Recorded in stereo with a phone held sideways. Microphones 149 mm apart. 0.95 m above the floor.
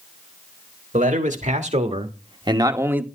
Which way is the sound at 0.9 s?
60° right (ahead or behind).